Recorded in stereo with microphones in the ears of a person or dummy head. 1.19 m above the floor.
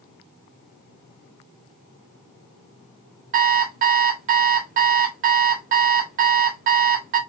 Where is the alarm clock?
45° right (ahead or behind), 0.7 m.